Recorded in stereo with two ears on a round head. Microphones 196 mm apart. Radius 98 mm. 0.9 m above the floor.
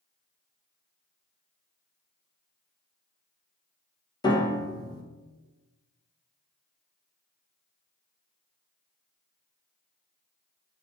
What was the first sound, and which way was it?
A piano, 20° left (ahead or behind).